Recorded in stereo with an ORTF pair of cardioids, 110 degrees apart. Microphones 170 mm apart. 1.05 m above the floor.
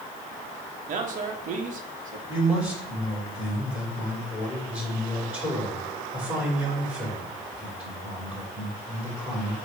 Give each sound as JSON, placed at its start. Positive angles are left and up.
{"t": 0.9, "sound": "a man speaking", "azimuth_deg": -55, "distance_m": 1.4}
{"t": 2.3, "sound": "a man speaking", "azimuth_deg": -10, "distance_m": 3.5}